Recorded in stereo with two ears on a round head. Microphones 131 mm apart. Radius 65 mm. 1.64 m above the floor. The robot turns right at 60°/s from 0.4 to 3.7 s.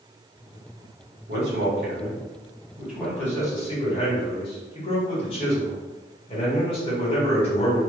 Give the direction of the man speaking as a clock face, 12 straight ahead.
4 o'clock.